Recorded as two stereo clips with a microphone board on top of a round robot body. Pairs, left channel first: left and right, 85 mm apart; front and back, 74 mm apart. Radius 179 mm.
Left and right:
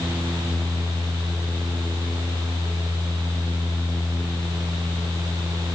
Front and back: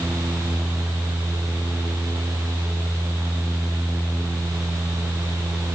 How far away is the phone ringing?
No phone ringing in this recording.